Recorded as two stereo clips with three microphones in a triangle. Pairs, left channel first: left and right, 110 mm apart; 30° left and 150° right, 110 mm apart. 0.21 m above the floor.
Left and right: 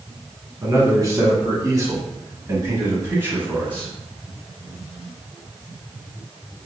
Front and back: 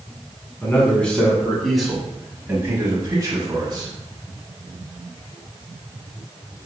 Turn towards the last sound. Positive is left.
turn(degrees=-160)